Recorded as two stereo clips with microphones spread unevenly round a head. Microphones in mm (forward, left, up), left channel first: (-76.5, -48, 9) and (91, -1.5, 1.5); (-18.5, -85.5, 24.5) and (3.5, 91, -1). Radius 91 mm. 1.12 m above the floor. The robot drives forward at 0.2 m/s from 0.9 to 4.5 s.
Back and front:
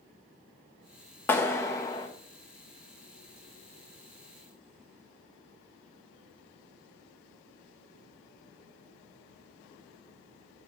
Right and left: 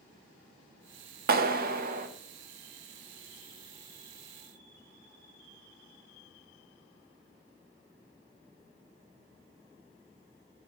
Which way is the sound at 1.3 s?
115° left.